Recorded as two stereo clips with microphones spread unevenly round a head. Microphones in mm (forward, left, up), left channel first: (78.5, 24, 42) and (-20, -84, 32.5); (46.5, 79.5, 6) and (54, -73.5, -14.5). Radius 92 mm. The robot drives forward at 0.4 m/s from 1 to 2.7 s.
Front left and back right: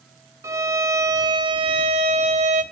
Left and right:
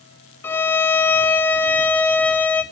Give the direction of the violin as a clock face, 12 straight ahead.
7 o'clock.